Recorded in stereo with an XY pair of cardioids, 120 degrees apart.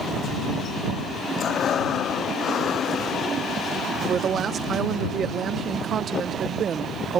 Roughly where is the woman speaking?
Ahead right.